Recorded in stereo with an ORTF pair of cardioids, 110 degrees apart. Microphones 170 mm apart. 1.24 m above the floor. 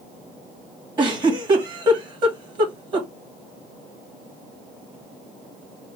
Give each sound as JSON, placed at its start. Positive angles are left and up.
{"t": 1.0, "sound": "a giggle", "azimuth_deg": -25, "distance_m": 2.0}